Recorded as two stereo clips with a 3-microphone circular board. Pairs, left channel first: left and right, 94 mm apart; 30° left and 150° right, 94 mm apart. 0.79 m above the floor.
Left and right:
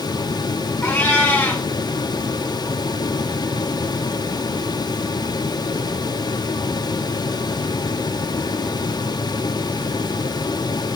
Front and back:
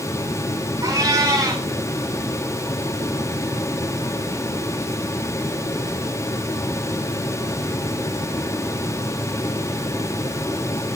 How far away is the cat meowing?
About 3.5 m.